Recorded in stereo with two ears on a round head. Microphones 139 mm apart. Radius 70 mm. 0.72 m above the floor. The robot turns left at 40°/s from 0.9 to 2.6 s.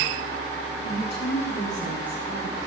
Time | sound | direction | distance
0.8 | a woman speaking | 80° left | 9 m